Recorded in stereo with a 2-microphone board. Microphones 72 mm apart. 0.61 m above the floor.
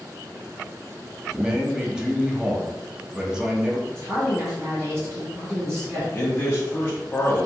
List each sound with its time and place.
1.3 s a man speaking: 10° right (ahead or behind), 0.7 m
3.9 s a woman speaking: 40° right (ahead or behind), 1.7 m
6.1 s a man speaking: 25° left (ahead or behind), 0.8 m